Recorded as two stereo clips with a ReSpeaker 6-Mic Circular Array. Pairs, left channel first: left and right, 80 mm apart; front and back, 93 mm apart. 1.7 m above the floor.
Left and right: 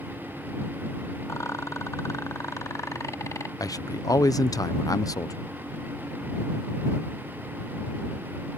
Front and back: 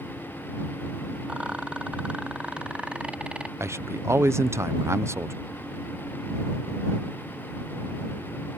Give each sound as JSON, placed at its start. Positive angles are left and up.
{"t": 1.3, "sound": "a rattle", "azimuth_deg": 110}
{"t": 3.6, "sound": "a man speaking", "azimuth_deg": 120}